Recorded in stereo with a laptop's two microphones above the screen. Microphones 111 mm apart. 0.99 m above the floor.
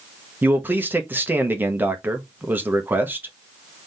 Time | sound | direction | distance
0.4 | a man speaking | 15° right (ahead or behind) | 0.7 m